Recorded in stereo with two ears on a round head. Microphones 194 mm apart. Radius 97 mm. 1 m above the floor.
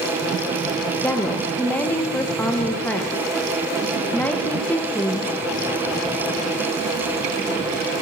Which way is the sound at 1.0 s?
5° left (ahead or behind).